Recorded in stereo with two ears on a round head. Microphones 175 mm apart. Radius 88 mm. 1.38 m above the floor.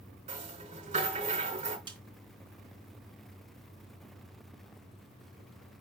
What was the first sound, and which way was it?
A rattle, 35° right (ahead or behind).